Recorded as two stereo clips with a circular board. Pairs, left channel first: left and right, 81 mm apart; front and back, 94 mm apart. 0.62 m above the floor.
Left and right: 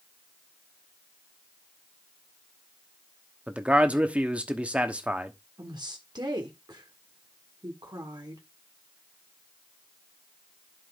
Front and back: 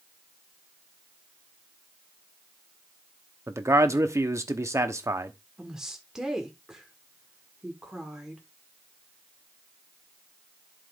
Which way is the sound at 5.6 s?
95° right.